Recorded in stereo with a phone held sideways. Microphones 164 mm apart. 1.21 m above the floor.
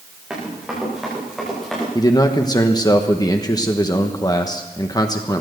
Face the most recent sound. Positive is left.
turn(degrees=25)  # may be behind; listen again after turning